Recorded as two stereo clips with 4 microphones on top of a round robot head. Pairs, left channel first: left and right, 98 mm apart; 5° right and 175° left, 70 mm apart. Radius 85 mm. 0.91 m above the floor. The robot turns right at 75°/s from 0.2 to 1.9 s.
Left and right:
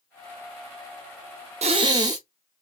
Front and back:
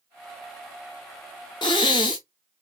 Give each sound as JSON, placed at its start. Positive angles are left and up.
{"t": 1.6, "sound": "breathing", "azimuth_deg": -55, "distance_m": 0.6}